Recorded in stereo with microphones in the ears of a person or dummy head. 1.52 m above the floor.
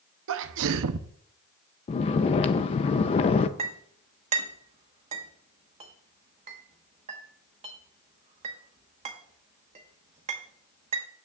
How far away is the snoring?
About 0.6 m.